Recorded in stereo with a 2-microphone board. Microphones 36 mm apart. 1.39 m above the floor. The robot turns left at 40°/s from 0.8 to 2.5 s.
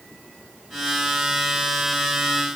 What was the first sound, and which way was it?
Only background noise.